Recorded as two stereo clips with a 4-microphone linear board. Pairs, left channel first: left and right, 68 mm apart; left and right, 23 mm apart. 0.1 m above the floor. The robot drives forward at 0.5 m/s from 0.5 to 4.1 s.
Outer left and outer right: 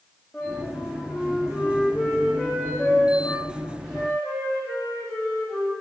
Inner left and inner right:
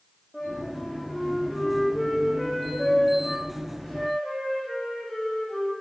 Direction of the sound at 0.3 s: 5° right (ahead or behind).